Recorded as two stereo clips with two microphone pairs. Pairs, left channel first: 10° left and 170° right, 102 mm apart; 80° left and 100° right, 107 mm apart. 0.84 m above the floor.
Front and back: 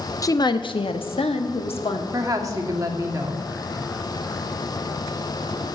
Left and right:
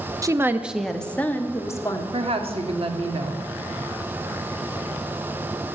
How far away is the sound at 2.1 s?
About 1.8 m.